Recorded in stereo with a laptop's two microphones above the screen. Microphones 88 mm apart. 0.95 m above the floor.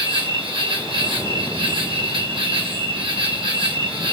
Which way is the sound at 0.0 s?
75° right (ahead or behind).